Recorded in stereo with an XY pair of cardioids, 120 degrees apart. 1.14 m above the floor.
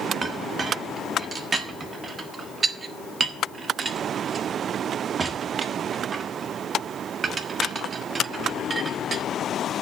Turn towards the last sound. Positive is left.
turn(degrees=-30)